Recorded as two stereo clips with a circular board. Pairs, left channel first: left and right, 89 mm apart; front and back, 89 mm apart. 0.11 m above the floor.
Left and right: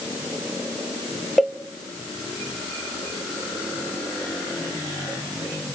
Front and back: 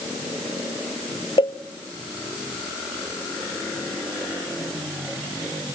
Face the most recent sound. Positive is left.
turn(degrees=0)